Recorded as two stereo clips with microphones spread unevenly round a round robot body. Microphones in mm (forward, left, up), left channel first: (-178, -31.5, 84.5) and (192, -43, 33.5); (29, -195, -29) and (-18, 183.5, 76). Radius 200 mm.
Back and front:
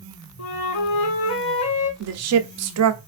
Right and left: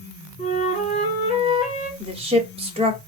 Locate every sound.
0.4 s a flute: 160° right, 1.0 m
2.0 s a woman speaking: 10° left, 0.9 m